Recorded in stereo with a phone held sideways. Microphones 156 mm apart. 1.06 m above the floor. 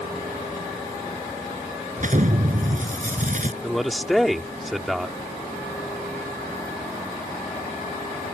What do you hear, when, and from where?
2.0 s an explosion: 55° right (ahead or behind)
3.6 s a man speaking: centre (ahead or behind)